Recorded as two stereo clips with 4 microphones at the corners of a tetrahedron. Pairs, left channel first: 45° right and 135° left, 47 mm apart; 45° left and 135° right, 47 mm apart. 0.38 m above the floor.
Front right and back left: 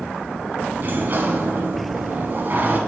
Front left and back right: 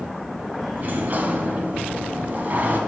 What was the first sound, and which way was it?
A sliding door, straight behind.